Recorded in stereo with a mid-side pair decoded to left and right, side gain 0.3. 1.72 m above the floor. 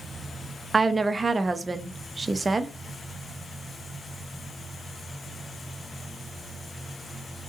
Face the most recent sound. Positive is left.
turn(degrees=-30)